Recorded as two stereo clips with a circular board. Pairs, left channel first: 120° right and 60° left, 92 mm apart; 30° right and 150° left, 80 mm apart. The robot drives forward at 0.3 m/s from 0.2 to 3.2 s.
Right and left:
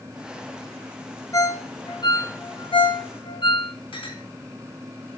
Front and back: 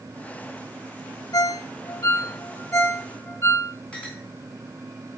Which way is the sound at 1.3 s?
70° right.